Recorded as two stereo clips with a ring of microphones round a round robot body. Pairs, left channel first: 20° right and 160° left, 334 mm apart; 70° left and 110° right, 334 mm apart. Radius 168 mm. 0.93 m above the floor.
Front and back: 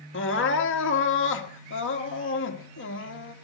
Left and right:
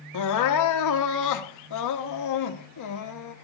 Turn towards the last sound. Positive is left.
turn(degrees=30)